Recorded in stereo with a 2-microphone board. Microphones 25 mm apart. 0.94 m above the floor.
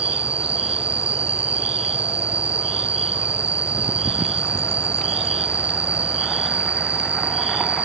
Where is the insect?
60° right (ahead or behind).